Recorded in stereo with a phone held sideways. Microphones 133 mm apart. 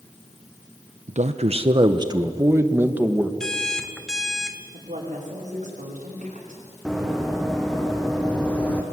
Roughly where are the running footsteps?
Centre.